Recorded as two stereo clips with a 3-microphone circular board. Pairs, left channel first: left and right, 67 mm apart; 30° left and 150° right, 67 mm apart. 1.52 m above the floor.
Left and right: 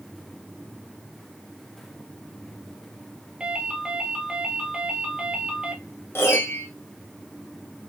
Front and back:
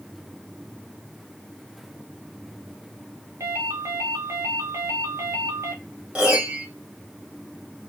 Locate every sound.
3.4 s a ringtone: 160° right, 0.9 m
6.2 s a piano: 140° left, 0.9 m